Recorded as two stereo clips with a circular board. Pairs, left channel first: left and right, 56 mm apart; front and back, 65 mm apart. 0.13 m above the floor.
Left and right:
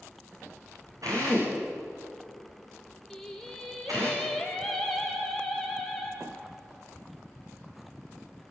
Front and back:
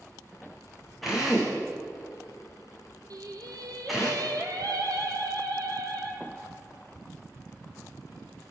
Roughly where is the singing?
Behind.